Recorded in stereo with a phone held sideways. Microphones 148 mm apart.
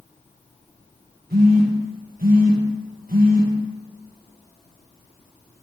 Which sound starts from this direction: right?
A phone buzzing, at 1.3 s.